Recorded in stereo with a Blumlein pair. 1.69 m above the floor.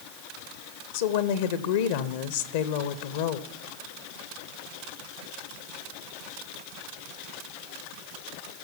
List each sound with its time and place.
0.9 s a woman speaking: 55° left, 0.9 m